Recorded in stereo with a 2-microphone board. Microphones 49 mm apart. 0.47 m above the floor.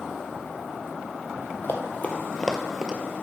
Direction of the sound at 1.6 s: 45° left (ahead or behind).